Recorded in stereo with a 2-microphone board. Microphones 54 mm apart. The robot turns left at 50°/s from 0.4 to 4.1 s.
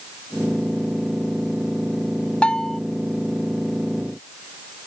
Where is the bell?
20° left (ahead or behind); by 2.8 s 5° left (ahead or behind).